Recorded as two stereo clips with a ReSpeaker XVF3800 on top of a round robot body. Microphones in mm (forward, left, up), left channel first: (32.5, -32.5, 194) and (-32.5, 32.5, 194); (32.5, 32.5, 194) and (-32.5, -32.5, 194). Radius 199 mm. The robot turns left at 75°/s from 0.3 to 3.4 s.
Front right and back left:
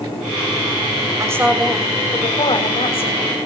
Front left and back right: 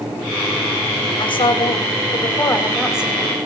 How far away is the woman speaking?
About 6 m.